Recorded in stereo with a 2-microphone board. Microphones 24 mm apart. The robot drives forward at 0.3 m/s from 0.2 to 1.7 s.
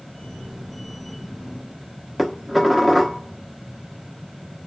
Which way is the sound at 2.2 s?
10° left (ahead or behind).